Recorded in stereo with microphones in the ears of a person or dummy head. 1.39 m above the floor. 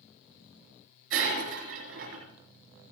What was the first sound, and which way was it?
Breaking glass, 80° right.